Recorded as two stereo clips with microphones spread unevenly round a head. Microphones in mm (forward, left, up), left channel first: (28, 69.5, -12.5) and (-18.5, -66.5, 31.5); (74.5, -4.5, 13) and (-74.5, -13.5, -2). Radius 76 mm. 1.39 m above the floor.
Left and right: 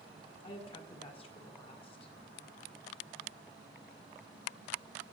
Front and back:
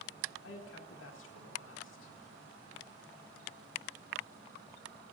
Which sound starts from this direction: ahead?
A woman speaking, at 0.4 s.